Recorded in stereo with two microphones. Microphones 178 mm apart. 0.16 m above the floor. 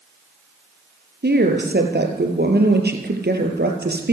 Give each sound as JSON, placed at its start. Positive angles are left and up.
{"t": 1.2, "sound": "a woman speaking", "side_deg": -70, "distance_m": 4.0}